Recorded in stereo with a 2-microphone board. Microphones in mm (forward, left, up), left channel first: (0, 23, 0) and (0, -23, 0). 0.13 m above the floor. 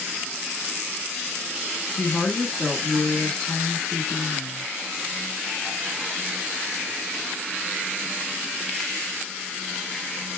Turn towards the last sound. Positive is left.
turn(degrees=15)  # may be behind; listen again after turning